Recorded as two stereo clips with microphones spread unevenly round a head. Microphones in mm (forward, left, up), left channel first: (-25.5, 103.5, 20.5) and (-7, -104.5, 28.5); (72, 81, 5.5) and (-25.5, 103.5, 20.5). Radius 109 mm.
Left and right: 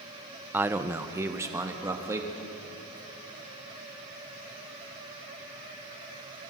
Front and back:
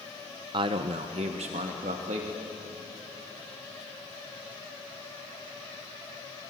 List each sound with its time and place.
0.5 s a man speaking: 165° right, 0.9 m; by 2.3 s 160° right, 3 m